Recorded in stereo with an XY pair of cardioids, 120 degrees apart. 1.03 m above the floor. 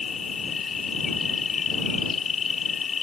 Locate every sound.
0.0 s an insect: 40° left